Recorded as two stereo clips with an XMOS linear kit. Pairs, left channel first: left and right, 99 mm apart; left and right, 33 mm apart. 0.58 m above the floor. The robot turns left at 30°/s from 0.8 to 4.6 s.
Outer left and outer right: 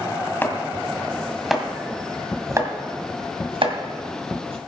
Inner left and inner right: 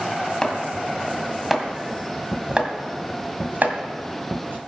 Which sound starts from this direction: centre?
Chopping, at 0.4 s.